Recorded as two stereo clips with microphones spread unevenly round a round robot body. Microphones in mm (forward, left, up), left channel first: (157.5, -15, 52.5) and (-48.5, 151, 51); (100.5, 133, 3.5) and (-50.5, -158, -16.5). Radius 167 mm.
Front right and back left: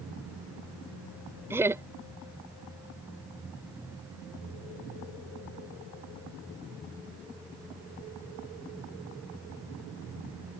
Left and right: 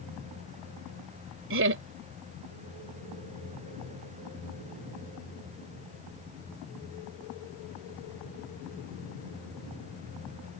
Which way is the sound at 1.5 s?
140° right.